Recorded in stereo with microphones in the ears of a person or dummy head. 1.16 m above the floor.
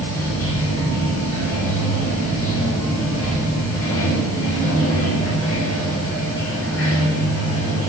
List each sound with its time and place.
0.0 s running water: 10° left (ahead or behind), 6 m